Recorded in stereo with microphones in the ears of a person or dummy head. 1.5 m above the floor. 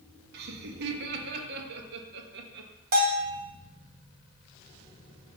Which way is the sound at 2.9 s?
50° right (ahead or behind).